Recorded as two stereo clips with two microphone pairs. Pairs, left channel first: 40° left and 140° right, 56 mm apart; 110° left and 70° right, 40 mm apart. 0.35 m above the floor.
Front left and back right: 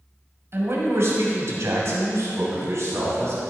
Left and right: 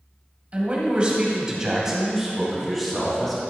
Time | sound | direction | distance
0.5 | a man speaking | 120° right | 1.8 m